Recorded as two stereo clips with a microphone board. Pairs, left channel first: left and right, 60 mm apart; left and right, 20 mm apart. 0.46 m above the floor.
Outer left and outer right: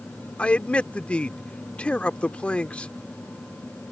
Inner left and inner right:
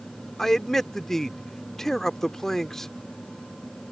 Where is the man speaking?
20° left (ahead or behind).